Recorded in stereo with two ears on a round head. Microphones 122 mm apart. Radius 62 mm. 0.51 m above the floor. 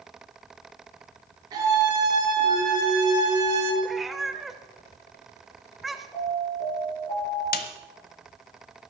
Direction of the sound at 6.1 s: 25° left (ahead or behind).